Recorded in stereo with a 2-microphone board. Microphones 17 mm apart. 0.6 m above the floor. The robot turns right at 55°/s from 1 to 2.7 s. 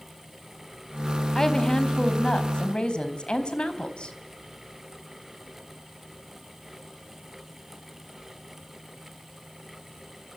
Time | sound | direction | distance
1.4 | a woman speaking | 25° left | 3.5 m